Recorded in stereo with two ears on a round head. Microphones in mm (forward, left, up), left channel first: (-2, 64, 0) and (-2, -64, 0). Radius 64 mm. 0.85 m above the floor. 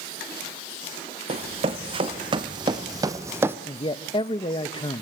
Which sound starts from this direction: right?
Running footsteps, at 1.3 s.